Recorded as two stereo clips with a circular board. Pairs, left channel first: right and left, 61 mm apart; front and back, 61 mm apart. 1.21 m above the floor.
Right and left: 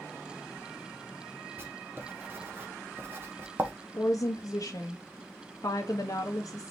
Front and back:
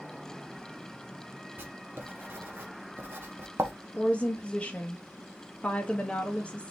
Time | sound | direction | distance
1.6 | writing | 135° left | 1.2 m
3.9 | a woman speaking | 70° right | 1.1 m